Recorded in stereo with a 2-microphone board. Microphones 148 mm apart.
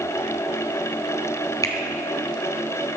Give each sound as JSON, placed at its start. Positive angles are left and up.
{"t": 1.6, "sound": "a finger snap", "side_deg": 25, "distance_m": 1.4}